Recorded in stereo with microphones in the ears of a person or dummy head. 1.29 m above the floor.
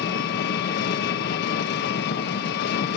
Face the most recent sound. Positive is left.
turn(degrees=55)  # may be behind; listen again after turning